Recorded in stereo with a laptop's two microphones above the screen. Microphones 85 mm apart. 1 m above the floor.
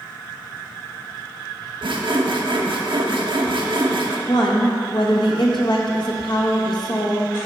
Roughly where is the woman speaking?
Left.